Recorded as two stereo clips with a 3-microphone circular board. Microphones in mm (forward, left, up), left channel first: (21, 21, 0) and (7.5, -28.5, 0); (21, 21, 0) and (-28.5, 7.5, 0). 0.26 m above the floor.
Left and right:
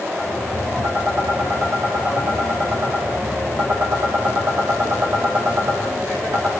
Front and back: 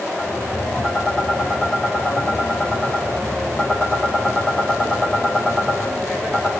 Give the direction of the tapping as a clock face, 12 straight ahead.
2 o'clock.